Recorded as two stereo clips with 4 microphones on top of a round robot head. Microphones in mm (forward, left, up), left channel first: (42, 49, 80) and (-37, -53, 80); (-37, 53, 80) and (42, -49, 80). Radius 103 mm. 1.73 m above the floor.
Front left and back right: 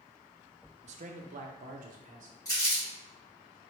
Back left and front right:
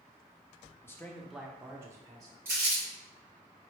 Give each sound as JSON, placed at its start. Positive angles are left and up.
{"t": 0.8, "sound": "a man speaking", "azimuth_deg": -160, "distance_m": 0.6}
{"t": 2.5, "sound": "crumpling", "azimuth_deg": 5, "distance_m": 1.2}